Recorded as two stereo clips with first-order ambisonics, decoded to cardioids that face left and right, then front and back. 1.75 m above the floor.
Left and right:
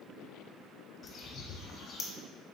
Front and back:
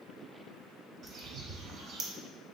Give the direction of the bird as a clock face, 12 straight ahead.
7 o'clock.